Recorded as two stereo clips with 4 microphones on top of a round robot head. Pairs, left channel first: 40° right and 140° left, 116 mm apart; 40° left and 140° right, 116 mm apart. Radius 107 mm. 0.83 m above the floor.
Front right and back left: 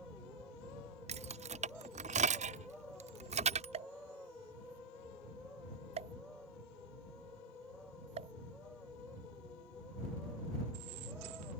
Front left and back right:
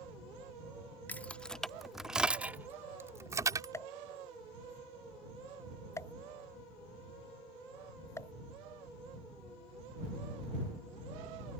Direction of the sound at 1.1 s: 115° left.